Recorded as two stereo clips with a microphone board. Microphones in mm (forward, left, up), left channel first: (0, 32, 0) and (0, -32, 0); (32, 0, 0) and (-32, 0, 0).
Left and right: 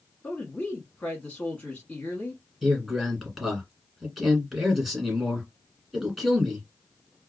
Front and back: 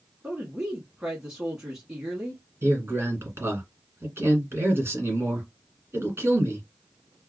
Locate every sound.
0.2 s a woman speaking: 110° left, 1.1 m
2.6 s a man speaking: straight behind, 1.6 m